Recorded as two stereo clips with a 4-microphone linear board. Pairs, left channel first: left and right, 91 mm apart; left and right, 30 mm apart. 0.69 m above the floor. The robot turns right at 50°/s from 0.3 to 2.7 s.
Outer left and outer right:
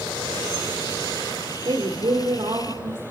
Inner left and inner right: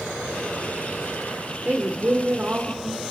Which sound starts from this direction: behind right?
A woman speaking, at 1.6 s.